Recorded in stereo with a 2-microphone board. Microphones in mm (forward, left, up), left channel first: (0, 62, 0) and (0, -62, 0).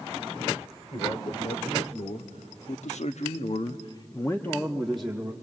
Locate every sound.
0.9 s a man speaking: 60° left (ahead or behind), 2.5 m; by 5.3 s 5° right (ahead or behind), 1.7 m